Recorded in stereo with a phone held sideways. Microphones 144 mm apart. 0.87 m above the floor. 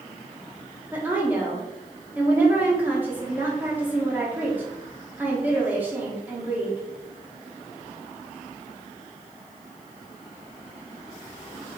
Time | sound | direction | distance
0.9 | a woman speaking | 15° right (ahead or behind) | 1.6 m